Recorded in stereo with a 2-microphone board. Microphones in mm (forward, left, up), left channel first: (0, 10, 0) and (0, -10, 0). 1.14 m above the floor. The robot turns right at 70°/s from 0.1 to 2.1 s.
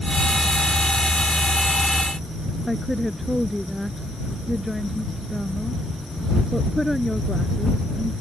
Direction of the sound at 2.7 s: 5° right (ahead or behind).